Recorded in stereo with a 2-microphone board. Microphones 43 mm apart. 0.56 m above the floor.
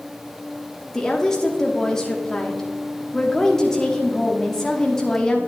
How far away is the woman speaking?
About 1.1 m.